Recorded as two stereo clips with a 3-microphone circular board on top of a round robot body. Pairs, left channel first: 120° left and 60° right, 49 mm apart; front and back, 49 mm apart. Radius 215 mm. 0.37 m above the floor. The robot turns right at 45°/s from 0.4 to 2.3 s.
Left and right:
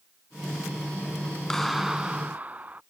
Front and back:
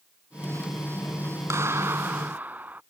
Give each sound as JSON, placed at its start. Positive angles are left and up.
{"t": 1.5, "sound": "a clap", "azimuth_deg": -160}